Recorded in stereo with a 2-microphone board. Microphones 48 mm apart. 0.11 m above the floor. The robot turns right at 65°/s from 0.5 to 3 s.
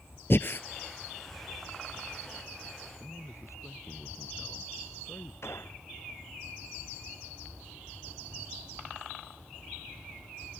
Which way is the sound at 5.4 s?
60° left (ahead or behind).